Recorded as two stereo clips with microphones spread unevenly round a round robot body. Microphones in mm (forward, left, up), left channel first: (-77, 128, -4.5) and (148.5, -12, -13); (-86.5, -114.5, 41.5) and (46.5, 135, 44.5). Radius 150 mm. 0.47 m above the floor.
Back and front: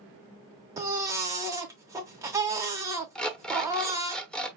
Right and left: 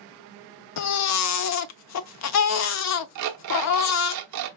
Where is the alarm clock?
60° left, 0.8 m.